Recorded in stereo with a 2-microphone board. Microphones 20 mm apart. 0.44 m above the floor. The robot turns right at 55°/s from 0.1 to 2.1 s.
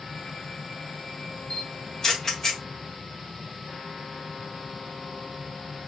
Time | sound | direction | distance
1.5 | a camera shutter | 45° left (ahead or behind) | 1.3 m